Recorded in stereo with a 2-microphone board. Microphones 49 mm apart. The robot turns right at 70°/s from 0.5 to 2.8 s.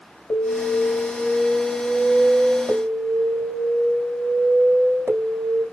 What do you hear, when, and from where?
0.3 s an alarm: 90° left, 4.5 m; by 5.7 s 110° right, 4.5 m